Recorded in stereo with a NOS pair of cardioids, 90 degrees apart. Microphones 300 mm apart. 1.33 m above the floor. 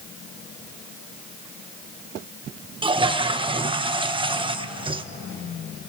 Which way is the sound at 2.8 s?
15° right.